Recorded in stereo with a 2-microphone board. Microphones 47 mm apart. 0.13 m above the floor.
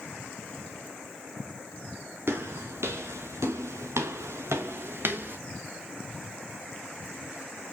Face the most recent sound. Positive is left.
turn(degrees=-45)  # may be behind; listen again after turning